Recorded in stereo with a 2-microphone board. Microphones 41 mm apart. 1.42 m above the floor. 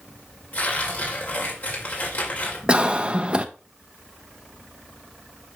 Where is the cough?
25° right (ahead or behind), 0.7 m.